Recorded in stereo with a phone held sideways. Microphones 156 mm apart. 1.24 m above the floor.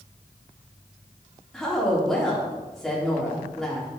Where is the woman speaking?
Centre (ahead or behind), 4 m.